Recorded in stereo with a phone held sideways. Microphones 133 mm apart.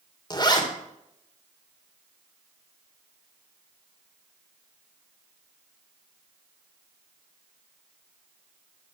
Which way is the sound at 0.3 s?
35° left (ahead or behind).